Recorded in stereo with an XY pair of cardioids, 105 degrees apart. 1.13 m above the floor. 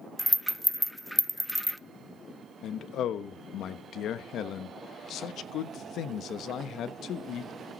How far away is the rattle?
About 0.6 m.